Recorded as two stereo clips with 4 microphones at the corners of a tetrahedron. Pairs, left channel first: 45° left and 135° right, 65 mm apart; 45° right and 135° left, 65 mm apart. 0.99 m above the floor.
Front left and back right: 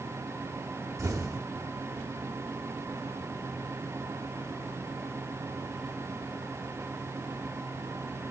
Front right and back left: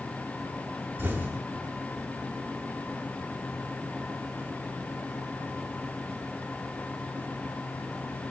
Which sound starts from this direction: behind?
An explosion, at 1.0 s.